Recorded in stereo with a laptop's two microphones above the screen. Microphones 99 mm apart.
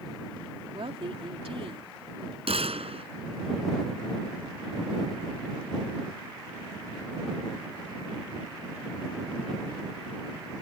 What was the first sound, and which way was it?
A woman speaking, 65° right (ahead or behind).